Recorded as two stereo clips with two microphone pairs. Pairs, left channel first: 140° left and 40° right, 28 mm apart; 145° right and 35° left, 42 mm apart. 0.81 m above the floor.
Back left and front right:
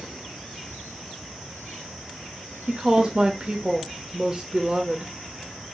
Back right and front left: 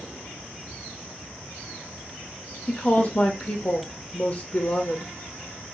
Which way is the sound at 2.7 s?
95° right.